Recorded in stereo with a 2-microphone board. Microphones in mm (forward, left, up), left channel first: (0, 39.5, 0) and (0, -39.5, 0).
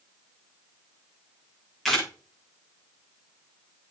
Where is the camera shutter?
Centre (ahead or behind), 8.5 m.